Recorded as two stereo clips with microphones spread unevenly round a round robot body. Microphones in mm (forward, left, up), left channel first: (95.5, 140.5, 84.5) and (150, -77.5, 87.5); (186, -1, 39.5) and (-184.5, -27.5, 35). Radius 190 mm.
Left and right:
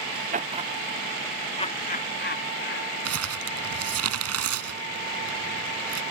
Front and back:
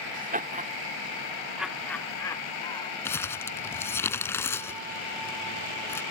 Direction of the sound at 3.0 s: 80° right.